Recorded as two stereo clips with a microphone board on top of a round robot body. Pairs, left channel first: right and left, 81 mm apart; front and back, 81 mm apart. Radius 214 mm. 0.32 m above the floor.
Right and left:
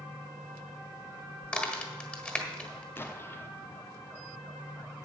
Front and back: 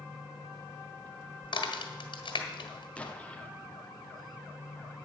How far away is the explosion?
About 1.3 m.